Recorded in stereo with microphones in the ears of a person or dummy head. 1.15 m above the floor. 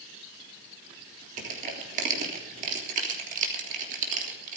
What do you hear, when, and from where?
1.4 s crushing: 35° right (ahead or behind), 3 m